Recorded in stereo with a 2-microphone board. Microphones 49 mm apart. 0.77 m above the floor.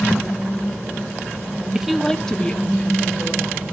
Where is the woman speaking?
15° right (ahead or behind), 0.7 m; by 3.7 s 25° left (ahead or behind), 3.5 m.